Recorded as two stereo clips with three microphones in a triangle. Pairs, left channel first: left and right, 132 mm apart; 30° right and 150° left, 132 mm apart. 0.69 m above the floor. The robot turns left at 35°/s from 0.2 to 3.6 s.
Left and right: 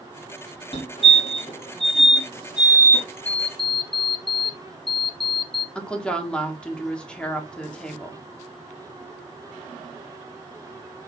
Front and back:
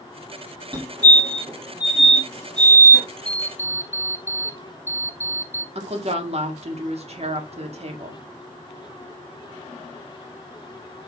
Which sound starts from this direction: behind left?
A fire alarm, at 0.7 s.